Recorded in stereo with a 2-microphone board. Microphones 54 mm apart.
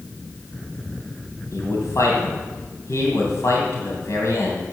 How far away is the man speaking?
About 2.5 m.